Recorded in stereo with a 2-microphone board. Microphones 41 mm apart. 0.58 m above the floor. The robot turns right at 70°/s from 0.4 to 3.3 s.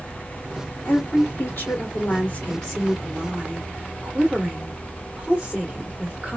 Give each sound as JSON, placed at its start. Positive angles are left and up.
{"t": 0.8, "sound": "a woman speaking", "azimuth_deg": 40, "distance_m": 2.0}